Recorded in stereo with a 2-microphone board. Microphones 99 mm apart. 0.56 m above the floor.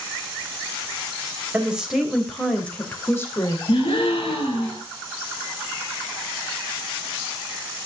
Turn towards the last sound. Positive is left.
turn(degrees=60)  # may be behind; listen again after turning